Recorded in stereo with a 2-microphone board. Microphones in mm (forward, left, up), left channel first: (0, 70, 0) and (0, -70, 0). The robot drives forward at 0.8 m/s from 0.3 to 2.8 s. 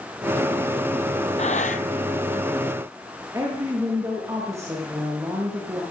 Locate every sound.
1.4 s breathing: 55° left (ahead or behind), 0.9 m; by 1.8 s 70° left (ahead or behind), 0.8 m
3.3 s a woman speaking: 25° right (ahead or behind), 6 m